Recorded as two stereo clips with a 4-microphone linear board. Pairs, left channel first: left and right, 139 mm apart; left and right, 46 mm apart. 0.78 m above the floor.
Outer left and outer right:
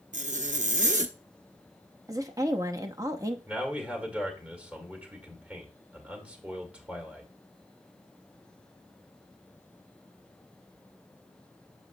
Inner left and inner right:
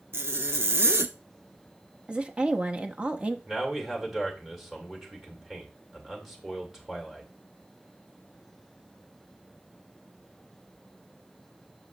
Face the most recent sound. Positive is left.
turn(degrees=-10)  # may be behind; listen again after turning